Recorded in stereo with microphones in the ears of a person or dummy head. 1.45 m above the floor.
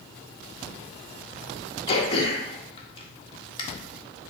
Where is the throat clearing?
35° left (ahead or behind), 1.2 m.